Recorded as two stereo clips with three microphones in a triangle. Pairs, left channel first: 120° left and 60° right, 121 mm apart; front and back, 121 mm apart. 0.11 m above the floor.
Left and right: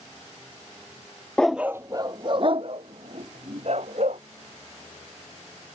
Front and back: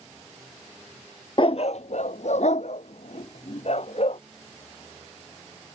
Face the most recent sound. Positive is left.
turn(degrees=-35)